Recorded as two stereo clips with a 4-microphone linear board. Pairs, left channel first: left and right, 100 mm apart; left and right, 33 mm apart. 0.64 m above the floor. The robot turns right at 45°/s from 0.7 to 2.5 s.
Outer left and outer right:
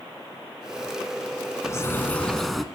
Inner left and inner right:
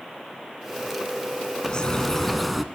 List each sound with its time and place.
1.6 s a bird: 140° left, 0.9 m; by 2.6 s straight behind, 0.9 m